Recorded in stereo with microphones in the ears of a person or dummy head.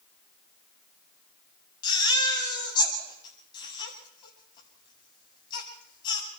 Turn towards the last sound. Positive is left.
turn(degrees=25)  # may be behind; listen again after turning